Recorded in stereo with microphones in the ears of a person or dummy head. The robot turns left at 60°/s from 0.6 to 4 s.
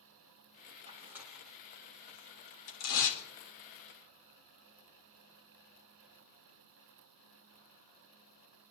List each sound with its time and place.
0.9 s tearing paper: 35° right (ahead or behind), 2 m; by 3.2 s 70° left (ahead or behind), 2 m